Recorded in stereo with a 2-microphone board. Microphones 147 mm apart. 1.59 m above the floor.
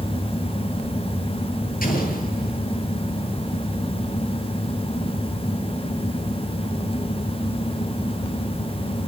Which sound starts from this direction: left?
An explosion, at 1.8 s.